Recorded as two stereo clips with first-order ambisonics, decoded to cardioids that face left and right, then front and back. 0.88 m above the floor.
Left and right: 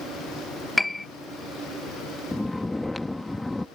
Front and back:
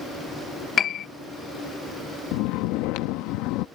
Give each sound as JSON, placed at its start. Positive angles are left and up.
{"t": 0.8, "sound": "a piano", "azimuth_deg": 15}
{"t": 2.3, "sound": "snoring", "azimuth_deg": 5}